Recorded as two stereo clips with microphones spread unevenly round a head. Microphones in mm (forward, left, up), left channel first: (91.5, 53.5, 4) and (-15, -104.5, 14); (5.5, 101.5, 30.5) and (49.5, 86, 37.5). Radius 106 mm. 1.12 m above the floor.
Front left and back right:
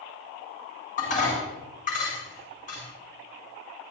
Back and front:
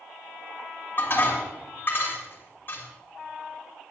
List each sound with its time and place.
1.0 s dishes clattering: 115° left, 6.5 m